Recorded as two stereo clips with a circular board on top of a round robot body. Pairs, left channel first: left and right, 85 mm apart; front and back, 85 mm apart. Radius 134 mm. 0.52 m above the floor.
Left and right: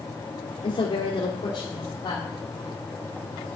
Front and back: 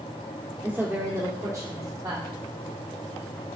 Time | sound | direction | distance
0.6 | a woman speaking | 115° left | 1.4 m